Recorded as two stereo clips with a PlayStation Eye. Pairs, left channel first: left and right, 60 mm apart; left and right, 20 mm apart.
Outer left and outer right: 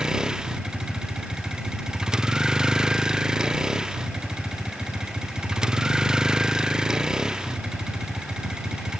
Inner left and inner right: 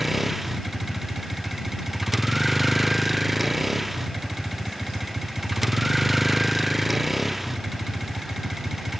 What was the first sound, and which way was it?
A vehicle, 10° right (ahead or behind).